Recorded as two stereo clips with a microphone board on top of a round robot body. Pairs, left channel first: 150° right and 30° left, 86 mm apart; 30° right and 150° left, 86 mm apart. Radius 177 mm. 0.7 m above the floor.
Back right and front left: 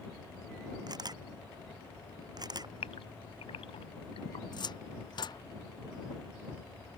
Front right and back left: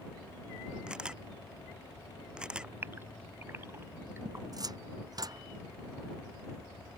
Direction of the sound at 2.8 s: 145° right.